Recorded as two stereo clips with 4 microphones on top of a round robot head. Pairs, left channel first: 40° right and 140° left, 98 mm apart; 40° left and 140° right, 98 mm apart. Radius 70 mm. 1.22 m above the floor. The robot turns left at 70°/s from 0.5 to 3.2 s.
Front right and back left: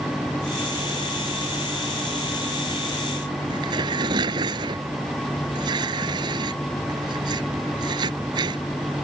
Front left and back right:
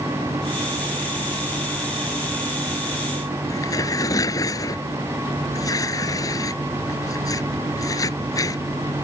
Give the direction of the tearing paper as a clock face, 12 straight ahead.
9 o'clock.